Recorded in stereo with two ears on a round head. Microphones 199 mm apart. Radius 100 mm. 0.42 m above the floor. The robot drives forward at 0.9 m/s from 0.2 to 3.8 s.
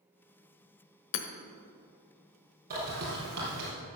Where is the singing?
No singing in this recording.